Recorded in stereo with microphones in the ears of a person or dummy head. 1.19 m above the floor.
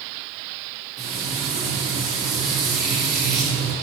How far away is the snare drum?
No snare drum in this recording.